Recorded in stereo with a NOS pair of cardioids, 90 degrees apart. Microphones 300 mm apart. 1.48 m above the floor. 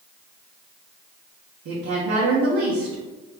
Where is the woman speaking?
55° right, 1.2 m.